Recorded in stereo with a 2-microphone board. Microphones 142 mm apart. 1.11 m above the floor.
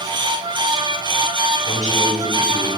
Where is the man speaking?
65° left (ahead or behind), 5 m; by 2.7 s 55° left (ahead or behind), 4.5 m.